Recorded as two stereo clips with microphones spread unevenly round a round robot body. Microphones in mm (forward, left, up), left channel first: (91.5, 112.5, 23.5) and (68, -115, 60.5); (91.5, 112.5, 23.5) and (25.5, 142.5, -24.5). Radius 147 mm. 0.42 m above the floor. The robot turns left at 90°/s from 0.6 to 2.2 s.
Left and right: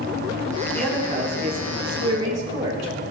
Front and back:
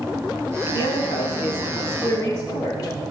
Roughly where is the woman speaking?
Ahead.